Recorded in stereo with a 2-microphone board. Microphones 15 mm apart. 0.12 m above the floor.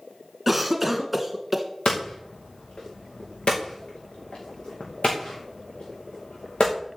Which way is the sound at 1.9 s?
85° left.